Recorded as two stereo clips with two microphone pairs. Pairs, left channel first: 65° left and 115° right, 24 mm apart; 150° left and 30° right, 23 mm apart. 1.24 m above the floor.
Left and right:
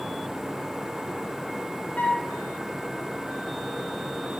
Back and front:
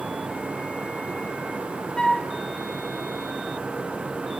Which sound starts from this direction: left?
A flute, at 2.0 s.